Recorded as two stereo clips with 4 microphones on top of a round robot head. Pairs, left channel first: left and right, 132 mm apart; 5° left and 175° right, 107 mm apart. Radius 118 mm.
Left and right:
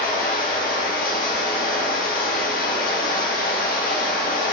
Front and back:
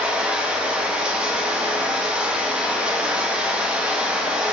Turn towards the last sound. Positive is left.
turn(degrees=110)